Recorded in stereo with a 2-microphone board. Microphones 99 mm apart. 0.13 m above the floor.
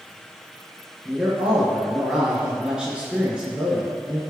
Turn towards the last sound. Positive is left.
turn(degrees=-10)  # may be behind; listen again after turning